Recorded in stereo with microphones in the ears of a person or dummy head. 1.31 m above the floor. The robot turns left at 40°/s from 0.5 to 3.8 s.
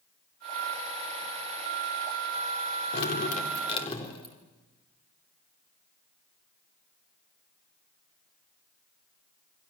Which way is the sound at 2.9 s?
65° left.